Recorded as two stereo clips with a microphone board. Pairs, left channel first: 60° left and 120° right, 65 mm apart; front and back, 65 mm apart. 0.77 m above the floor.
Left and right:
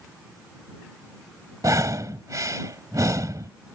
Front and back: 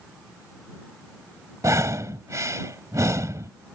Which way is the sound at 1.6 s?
145° right.